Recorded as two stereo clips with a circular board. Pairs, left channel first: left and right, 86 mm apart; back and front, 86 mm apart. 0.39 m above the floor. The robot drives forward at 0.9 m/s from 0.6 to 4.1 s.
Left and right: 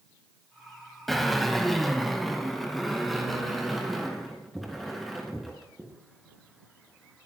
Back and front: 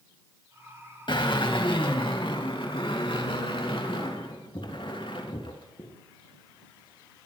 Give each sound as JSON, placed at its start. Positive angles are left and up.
{"t": 1.1, "sound": "a drill", "azimuth_deg": 180, "distance_m": 2.0}